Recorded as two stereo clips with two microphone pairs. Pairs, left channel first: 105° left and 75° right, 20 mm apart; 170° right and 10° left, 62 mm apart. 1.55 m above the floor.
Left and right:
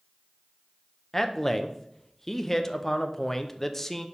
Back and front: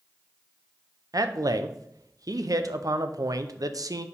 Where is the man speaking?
20° left, 0.6 m.